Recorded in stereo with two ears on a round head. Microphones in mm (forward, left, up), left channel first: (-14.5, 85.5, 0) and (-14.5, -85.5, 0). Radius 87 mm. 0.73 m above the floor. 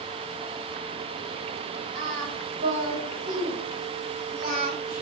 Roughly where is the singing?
Right.